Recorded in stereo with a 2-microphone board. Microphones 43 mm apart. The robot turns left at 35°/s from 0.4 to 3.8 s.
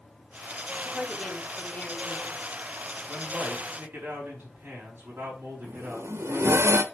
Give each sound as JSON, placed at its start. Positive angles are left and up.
{"t": 0.8, "sound": "a woman speaking", "azimuth_deg": 170, "distance_m": 1.5}
{"t": 3.1, "sound": "a man speaking", "side_deg": -25, "distance_m": 4.5}
{"t": 5.6, "sound": "a zipper", "side_deg": -80, "distance_m": 0.7}